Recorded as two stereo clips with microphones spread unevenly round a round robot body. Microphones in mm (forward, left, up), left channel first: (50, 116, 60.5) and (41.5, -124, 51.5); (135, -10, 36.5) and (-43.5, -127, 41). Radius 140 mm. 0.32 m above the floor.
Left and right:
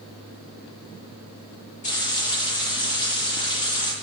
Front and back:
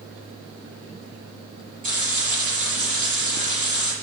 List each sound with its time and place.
1.8 s frying: 150° left, 6.5 m